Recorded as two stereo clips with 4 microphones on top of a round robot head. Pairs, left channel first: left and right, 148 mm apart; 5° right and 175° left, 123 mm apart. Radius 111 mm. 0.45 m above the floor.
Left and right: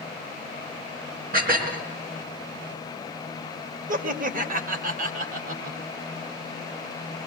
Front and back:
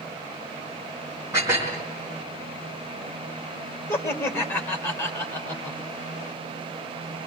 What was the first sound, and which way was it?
Dishes clattering, 110° right.